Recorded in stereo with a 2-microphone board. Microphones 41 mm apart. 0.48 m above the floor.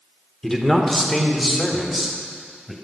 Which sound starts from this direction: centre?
A man speaking, at 0.4 s.